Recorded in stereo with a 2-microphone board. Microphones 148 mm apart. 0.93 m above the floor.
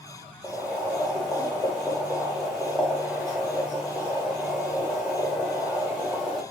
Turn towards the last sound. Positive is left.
turn(degrees=0)  # may be behind; listen again after turning